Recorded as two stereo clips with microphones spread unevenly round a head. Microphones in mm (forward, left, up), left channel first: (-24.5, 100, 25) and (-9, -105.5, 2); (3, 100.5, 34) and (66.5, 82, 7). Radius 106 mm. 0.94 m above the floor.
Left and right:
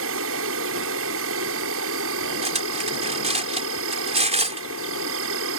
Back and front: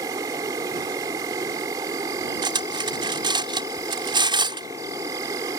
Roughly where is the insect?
Right.